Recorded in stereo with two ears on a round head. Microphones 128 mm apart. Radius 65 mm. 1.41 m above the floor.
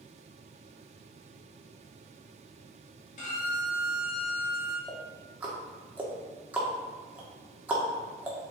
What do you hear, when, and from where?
3.2 s a violin: 50° left (ahead or behind), 2.5 m
4.9 s ticking: 10° right (ahead or behind), 1.7 m